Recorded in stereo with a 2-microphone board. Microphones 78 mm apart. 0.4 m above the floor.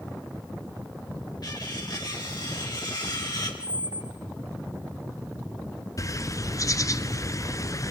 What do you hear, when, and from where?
1.4 s cutlery clinking: 60° left (ahead or behind), 4 m
3.6 s a squeak: 55° right (ahead or behind), 2.0 m
6.0 s a bird: 45° left (ahead or behind), 0.8 m